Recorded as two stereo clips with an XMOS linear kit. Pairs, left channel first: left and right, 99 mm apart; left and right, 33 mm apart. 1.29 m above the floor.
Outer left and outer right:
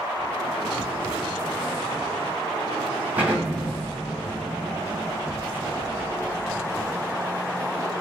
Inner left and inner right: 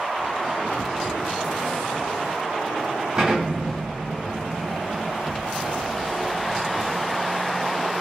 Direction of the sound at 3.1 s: 15° right (ahead or behind).